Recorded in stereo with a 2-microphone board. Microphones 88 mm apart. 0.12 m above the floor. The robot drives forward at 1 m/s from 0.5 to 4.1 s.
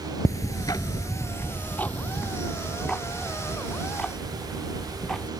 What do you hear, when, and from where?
0.2 s ticking: 40° left (ahead or behind); by 5.3 s 5° left (ahead or behind)